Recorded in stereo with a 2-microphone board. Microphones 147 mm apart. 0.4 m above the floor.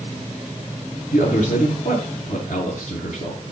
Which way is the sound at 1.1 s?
65° left (ahead or behind).